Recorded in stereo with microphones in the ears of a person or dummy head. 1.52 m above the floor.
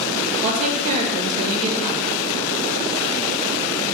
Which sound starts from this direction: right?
A woman speaking, at 0.4 s.